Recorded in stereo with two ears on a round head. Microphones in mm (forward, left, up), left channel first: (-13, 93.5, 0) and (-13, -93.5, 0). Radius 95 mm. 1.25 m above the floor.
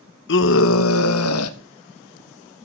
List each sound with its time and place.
0.3 s a scream: 60° left (ahead or behind), 1.2 m; by 1.6 s 80° left, 2.0 m